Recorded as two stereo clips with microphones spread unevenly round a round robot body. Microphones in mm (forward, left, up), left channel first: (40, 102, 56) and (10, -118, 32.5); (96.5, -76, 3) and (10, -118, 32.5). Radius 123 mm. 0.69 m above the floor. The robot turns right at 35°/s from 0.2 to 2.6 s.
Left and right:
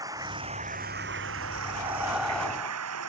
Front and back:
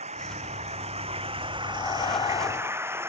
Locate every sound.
0.0 s running water: 175° right; by 3.1 s 90° right
1.6 s breathing: 30° right; by 3.1 s straight ahead